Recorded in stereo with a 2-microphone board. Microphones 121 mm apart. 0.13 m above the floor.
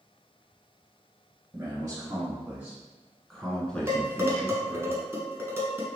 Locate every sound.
1.5 s a man speaking: 25° right (ahead or behind), 1.3 m; by 4.9 s 20° left (ahead or behind), 1.8 m
3.9 s dishes clattering: 20° right (ahead or behind), 0.9 m